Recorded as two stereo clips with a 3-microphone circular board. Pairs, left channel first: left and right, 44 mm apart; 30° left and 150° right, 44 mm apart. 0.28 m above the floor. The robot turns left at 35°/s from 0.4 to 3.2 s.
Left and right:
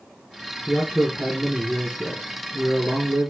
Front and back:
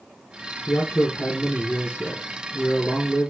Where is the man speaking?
10° left, 5.5 m; by 3.3 s 80° right, 5.5 m.